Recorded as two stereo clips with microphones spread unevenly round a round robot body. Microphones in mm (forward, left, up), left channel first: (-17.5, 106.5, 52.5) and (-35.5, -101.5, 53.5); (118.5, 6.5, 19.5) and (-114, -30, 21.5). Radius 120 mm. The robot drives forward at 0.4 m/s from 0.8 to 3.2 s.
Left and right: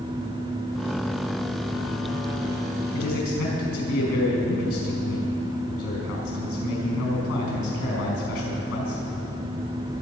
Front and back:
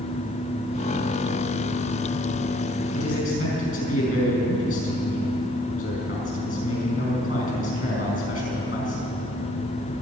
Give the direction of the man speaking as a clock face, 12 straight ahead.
10 o'clock.